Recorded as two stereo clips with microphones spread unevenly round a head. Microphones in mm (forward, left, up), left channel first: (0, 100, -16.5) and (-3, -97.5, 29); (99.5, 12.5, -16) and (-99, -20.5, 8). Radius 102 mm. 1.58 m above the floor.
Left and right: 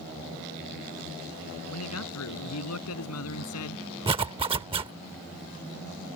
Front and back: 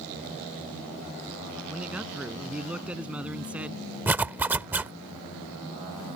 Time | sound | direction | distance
1.7 | a man speaking | 105° left | ?
4.1 | a zipper | 105° right | ?